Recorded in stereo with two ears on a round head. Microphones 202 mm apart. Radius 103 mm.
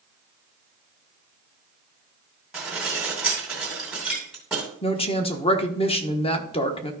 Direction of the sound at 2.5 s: 5° right (ahead or behind).